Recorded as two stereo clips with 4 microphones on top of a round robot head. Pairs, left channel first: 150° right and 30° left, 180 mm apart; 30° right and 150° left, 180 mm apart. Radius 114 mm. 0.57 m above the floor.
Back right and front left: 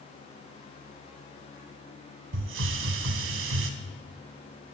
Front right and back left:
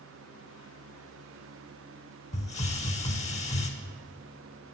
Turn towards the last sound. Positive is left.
turn(degrees=25)